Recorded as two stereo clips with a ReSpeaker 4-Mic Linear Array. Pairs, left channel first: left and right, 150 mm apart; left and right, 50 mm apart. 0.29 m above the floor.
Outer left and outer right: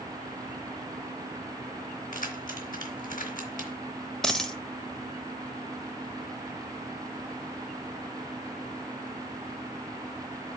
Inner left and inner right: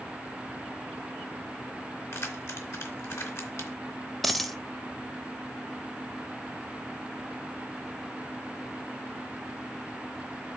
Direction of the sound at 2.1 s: 65° left (ahead or behind).